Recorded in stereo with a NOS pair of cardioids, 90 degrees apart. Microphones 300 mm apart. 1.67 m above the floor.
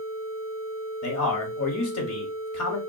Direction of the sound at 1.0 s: 55° left.